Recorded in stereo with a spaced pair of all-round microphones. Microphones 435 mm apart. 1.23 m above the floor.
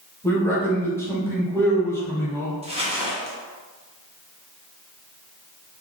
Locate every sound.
0.2 s a man speaking: 5° left (ahead or behind), 1.3 m
2.6 s crumpling: 15° right (ahead or behind), 1.0 m